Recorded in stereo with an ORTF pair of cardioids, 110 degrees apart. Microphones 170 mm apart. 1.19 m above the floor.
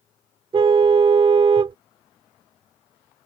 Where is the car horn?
30° right.